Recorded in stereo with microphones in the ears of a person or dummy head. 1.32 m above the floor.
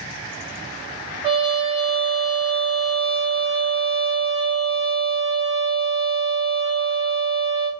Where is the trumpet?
20° right (ahead or behind), 1.6 m.